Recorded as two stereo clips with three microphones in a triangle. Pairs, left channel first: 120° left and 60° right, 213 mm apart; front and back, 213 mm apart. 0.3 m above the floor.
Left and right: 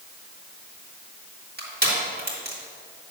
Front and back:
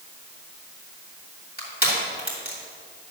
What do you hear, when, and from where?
1.6 s crushing: 35° right, 2.5 m